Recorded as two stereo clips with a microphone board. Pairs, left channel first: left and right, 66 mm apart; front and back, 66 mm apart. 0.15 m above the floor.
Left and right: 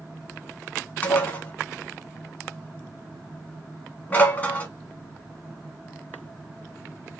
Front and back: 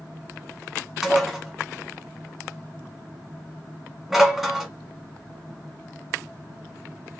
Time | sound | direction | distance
1.0 | dishes clattering | 95° left | 0.9 m